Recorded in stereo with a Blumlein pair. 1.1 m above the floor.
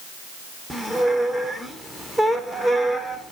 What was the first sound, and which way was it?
A squeak, straight ahead.